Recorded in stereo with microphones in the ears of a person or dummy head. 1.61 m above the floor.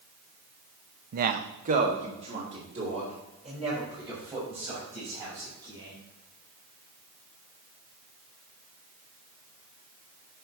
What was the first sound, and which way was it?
A man speaking, 55° right (ahead or behind).